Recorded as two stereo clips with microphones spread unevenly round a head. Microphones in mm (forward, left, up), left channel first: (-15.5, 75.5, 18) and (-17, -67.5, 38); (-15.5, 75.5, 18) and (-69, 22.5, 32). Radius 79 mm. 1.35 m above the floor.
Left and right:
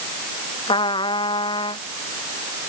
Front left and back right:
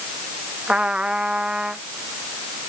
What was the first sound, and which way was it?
A trumpet, 150° left.